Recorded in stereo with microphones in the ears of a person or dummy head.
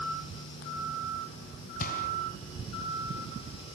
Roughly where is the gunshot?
Left.